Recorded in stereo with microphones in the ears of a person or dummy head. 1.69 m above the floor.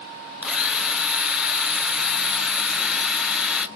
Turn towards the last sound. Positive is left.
turn(degrees=-5)  # may be behind; listen again after turning